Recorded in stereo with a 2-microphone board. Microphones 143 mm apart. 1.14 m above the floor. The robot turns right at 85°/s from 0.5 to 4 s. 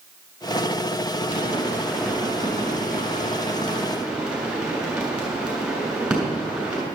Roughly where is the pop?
Left.